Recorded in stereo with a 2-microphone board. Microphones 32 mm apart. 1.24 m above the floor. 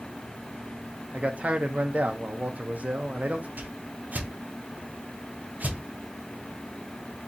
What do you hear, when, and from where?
1.1 s a man speaking: 45° right (ahead or behind), 0.6 m
3.6 s a whoosh: 55° right (ahead or behind), 0.8 m